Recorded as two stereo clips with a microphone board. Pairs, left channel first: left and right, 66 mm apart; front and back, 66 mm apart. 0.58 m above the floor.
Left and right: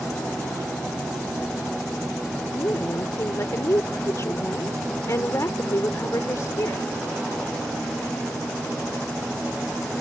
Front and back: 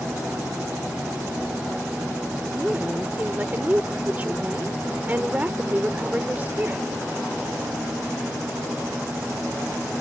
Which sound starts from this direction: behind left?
A woman speaking, at 2.5 s.